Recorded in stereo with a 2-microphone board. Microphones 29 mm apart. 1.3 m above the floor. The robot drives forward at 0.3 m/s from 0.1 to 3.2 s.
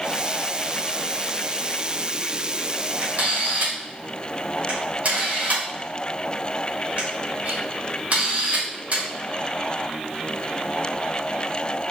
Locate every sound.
3.0 s a camera shutter: 70° right (ahead or behind), 2.5 m